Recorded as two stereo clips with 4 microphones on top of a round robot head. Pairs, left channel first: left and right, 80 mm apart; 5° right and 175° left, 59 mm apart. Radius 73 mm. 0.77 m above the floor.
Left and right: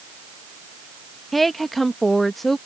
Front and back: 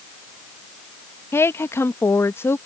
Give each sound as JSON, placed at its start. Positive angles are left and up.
{"t": 1.3, "sound": "a woman speaking", "azimuth_deg": 5}